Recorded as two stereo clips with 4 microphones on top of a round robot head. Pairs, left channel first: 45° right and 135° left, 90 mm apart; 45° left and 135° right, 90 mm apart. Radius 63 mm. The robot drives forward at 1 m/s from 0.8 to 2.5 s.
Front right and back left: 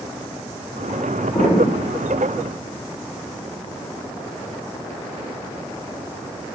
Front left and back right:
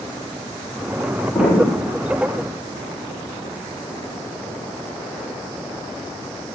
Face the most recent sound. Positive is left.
turn(degrees=-50)